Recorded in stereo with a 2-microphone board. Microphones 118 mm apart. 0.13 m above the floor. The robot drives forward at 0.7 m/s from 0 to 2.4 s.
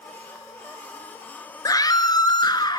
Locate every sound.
1.6 s a scream: 30° left (ahead or behind), 2.0 m; by 2.8 s 35° left (ahead or behind), 1.7 m